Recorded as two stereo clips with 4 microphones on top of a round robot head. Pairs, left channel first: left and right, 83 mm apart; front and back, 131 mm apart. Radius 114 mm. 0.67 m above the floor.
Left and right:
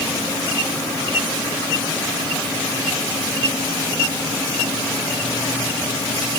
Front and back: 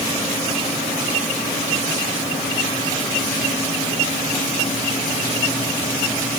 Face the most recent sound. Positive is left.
No sound to turn to.